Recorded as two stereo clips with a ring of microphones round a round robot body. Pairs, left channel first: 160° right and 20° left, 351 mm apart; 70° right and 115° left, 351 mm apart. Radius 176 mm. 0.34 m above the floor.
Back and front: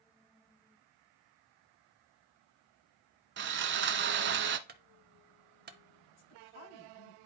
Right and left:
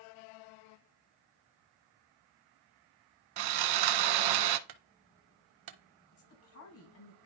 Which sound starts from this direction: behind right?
A woman speaking, at 6.1 s.